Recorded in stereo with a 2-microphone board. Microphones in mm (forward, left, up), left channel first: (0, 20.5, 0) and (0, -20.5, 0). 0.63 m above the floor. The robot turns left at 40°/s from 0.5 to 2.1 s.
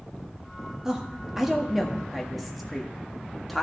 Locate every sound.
0.8 s a woman speaking: 15° right (ahead or behind), 1.2 m; by 3.6 s centre (ahead or behind), 1.2 m